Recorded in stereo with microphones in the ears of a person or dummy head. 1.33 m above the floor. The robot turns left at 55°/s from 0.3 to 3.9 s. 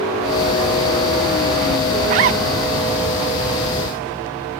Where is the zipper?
40° right (ahead or behind), 0.6 m; by 2.4 s 35° right (ahead or behind), 0.6 m.